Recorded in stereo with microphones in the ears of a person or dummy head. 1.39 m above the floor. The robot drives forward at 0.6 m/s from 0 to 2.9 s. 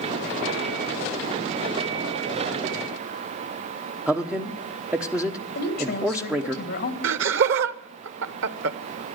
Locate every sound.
4.1 s a man speaking: centre (ahead or behind), 0.9 m
5.5 s a woman speaking: 60° left (ahead or behind), 2.5 m
7.0 s laughter: 70° right (ahead or behind), 0.9 m